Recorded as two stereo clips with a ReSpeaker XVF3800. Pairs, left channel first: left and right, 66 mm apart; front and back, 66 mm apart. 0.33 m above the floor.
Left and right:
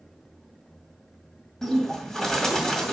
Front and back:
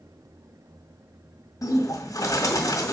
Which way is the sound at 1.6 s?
10° left.